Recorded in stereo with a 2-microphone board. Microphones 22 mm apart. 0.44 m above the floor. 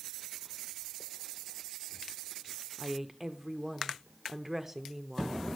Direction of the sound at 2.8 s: 15° right (ahead or behind).